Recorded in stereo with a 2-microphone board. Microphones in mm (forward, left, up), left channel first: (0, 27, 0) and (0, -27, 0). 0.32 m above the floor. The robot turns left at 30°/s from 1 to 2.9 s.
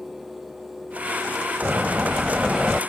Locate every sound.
1.6 s a door slam: 140° right; by 2.8 s 175° right